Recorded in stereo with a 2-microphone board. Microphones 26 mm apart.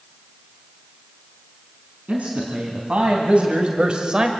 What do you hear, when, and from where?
2.1 s a man speaking: 55° right (ahead or behind), 4 m; by 4.3 s 30° right (ahead or behind), 1.4 m